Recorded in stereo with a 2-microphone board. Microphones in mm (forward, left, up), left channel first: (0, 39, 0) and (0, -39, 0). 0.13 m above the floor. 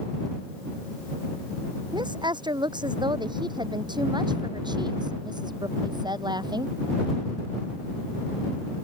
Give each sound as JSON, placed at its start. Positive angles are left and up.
{"t": 1.9, "sound": "a woman speaking", "side_deg": -75}